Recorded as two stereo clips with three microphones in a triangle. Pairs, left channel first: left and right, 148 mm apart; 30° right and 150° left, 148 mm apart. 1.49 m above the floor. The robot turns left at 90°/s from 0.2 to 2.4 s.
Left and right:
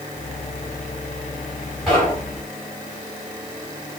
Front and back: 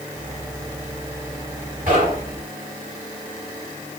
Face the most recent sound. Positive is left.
turn(degrees=130)